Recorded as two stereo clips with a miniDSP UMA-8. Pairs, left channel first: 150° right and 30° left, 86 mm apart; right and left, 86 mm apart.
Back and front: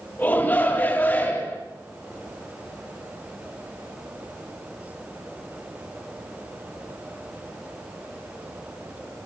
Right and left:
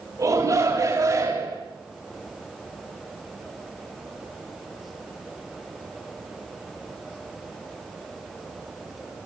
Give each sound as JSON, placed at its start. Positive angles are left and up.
{"t": 0.2, "sound": "a shout", "azimuth_deg": 140, "distance_m": 8.0}